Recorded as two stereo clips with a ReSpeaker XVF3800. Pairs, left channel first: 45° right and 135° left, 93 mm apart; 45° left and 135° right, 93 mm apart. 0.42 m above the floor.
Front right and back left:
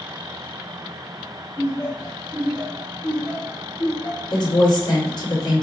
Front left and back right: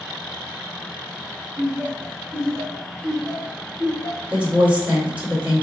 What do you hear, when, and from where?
1.6 s laughter: 85° right, 1.7 m; by 4.2 s 30° left, 1.4 m
4.3 s a woman speaking: 65° right, 2 m